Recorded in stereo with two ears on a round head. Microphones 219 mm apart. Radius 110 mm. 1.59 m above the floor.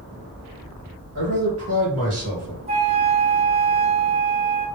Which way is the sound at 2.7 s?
25° right (ahead or behind).